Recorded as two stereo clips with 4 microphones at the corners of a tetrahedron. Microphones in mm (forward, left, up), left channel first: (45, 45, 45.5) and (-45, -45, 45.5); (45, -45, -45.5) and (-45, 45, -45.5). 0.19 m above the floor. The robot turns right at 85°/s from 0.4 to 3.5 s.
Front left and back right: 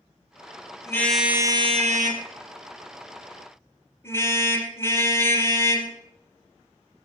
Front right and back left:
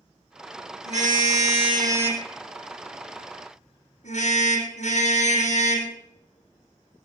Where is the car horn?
110° left, 3.5 m; by 7.1 s 25° right, 3.5 m.